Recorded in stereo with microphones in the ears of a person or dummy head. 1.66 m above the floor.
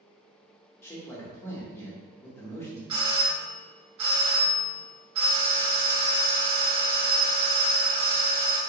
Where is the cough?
I don't hear a cough.